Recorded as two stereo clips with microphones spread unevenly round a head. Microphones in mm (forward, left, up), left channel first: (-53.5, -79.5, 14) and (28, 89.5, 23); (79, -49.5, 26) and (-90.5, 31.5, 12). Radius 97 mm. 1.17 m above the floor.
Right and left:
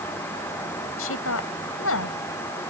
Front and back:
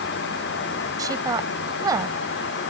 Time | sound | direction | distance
1.0 | a woman speaking | 130° right | ?